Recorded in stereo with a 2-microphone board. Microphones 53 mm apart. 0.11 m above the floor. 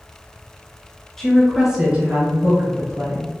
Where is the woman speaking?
10° left (ahead or behind), 1.1 m; by 3.4 s 55° right (ahead or behind), 1.8 m.